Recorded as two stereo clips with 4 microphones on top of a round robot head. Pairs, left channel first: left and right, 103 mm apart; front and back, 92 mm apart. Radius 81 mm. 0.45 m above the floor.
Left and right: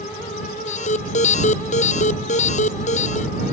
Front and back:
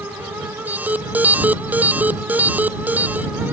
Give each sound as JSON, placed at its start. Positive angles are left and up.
{"t": 0.7, "sound": "an alarm", "azimuth_deg": 110}